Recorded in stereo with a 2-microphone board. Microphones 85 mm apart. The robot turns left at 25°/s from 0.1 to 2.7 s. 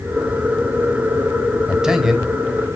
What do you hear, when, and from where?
1.7 s a man speaking: 10° right (ahead or behind), 1.3 m; by 2.3 s 5° right (ahead or behind), 1.3 m